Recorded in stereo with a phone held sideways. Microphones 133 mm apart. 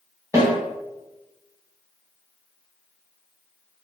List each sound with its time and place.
0.3 s a snare drum: 20° right (ahead or behind), 1.3 m